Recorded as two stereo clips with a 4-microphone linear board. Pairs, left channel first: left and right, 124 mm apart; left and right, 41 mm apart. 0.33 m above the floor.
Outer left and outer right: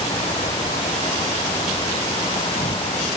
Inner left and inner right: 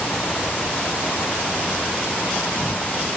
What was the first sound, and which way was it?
An insect, 60° left (ahead or behind).